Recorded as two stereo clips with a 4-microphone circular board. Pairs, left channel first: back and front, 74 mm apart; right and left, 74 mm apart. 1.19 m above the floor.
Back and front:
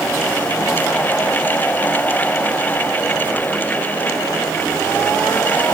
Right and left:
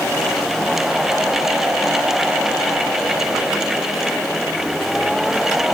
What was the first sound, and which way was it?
Only background noise.